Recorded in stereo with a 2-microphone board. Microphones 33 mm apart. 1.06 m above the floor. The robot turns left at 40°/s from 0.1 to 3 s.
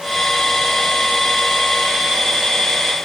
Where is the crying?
I don't hear crying.